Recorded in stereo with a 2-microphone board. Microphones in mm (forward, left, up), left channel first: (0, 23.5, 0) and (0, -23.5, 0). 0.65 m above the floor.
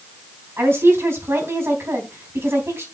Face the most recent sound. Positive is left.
turn(degrees=-65)  # may be behind; listen again after turning